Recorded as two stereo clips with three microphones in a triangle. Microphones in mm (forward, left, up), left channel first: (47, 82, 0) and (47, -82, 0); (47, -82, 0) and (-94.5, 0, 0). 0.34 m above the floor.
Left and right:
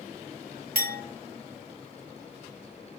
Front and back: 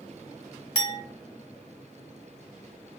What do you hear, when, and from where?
0.8 s a clink: 95° right, 1.7 m